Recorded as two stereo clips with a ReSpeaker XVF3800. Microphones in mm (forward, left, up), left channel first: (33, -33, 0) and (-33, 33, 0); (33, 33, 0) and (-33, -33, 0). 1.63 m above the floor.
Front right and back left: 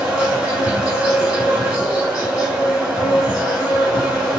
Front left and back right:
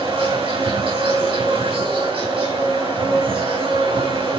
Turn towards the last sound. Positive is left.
turn(degrees=-140)